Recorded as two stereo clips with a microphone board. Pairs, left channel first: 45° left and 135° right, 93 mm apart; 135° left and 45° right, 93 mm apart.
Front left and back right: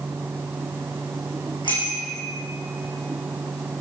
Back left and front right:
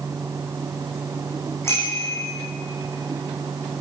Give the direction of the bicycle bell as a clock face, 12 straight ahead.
10 o'clock.